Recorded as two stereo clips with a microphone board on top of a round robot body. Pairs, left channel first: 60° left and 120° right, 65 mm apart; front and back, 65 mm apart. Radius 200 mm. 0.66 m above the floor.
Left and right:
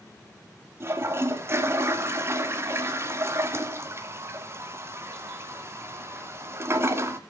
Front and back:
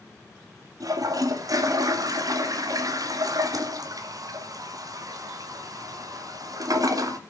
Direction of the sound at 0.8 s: 165° right.